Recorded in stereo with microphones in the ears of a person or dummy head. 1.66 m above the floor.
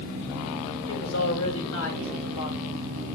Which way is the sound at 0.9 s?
70° left (ahead or behind).